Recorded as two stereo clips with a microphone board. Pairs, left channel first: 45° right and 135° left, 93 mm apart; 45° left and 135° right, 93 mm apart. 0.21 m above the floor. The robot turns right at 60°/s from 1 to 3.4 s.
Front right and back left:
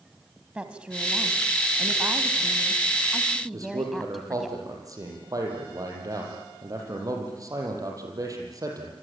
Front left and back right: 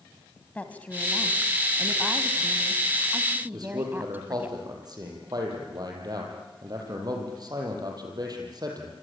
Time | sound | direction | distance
0.6 | a woman speaking | 80° left | 1.6 m
3.5 | a man speaking | 175° right | 6.5 m